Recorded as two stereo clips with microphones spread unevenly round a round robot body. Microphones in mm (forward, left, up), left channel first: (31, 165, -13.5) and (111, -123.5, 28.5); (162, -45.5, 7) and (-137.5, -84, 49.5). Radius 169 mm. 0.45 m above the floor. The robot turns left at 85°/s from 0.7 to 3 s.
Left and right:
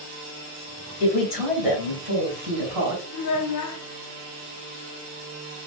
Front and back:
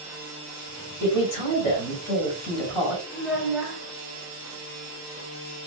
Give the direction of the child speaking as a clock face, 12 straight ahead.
9 o'clock.